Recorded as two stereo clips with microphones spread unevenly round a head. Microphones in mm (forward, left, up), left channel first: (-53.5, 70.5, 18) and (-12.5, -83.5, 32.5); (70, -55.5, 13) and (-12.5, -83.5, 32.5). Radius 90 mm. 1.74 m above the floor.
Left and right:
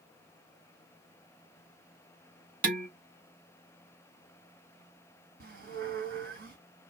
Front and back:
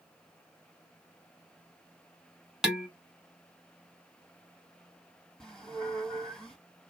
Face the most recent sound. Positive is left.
turn(degrees=-70)